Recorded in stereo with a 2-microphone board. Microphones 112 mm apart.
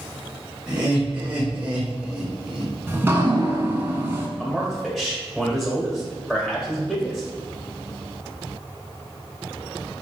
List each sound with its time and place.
0.7 s laughter: 15° right (ahead or behind), 0.9 m; by 2.7 s 5° right (ahead or behind), 1.3 m
2.9 s dripping: 20° right (ahead or behind), 0.6 m
4.4 s a man speaking: centre (ahead or behind), 1.4 m